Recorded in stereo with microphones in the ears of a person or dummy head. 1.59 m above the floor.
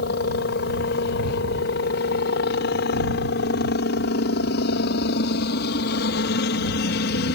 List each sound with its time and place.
0.0 s a helicopter: 60° left (ahead or behind)